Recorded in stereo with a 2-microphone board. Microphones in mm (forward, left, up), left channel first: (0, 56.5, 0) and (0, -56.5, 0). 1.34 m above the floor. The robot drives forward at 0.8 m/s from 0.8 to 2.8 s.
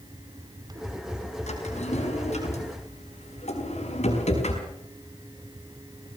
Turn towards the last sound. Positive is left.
turn(degrees=75)  # may be behind; listen again after turning